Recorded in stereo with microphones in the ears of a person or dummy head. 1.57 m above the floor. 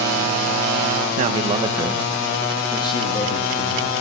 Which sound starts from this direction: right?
A man speaking, at 1.2 s.